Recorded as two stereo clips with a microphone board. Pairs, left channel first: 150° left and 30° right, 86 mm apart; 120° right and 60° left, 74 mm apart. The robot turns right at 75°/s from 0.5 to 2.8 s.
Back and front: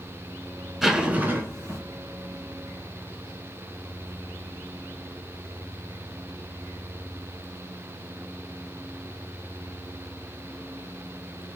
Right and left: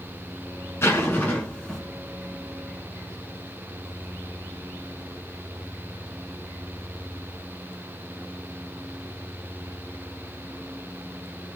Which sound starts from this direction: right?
A zipper, at 0.8 s.